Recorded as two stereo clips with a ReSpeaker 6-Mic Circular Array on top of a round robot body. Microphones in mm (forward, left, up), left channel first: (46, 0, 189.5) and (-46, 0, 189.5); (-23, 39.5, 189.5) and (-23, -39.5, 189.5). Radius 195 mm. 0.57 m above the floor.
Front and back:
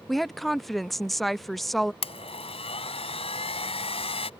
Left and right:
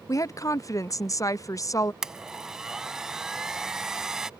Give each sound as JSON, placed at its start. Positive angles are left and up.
{"t": 0.1, "sound": "a woman speaking", "azimuth_deg": 90}
{"t": 2.0, "sound": "a blender", "azimuth_deg": -5}